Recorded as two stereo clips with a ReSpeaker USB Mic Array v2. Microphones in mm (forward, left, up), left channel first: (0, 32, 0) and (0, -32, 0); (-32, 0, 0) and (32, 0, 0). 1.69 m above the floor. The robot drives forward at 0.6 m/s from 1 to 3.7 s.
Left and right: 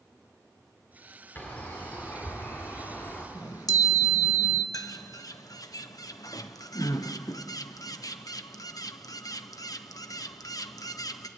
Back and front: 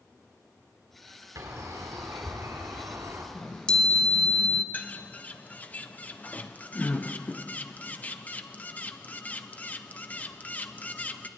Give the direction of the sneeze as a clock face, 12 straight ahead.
No sneeze in this recording.